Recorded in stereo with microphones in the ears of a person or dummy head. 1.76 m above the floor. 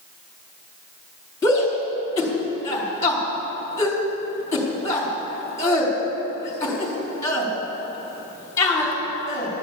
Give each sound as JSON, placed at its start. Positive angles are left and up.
{"t": 1.4, "sound": "a shout", "side_deg": 15, "distance_m": 4.0}